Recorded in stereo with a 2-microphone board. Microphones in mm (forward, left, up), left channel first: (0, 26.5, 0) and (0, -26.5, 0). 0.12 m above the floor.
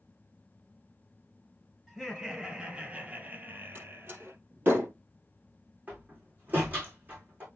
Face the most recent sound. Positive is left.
turn(degrees=-30)  # may be behind; listen again after turning